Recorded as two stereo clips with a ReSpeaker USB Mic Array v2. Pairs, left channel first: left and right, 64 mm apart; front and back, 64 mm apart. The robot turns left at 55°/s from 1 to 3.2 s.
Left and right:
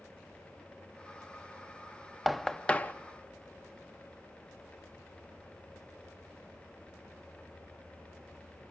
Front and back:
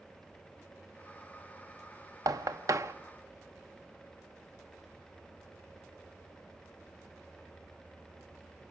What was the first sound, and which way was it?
Knocking, straight behind.